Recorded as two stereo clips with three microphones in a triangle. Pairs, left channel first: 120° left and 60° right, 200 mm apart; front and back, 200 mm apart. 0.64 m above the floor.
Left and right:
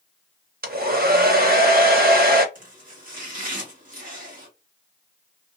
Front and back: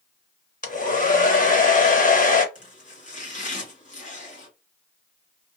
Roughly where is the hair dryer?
Ahead right.